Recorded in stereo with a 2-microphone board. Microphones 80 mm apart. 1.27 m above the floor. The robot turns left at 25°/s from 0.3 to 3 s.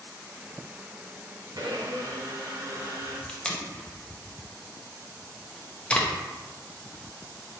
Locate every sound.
1.6 s a blender: 95° right, 0.8 m; by 3.2 s 130° right, 0.8 m
3.3 s tape being pulled: 15° left (ahead or behind), 0.5 m